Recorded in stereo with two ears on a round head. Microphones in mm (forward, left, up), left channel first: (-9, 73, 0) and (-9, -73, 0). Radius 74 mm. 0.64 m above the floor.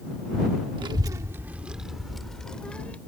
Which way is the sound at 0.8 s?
30° right (ahead or behind).